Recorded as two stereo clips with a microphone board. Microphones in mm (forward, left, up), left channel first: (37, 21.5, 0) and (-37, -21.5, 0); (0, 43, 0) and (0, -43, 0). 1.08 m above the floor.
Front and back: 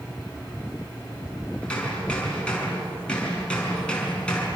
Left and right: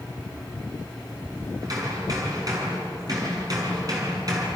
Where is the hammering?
50° right, 6.5 m.